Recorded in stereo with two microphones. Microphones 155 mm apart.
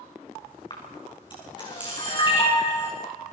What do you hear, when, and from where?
0.7 s a camera shutter: 30° left (ahead or behind), 6.5 m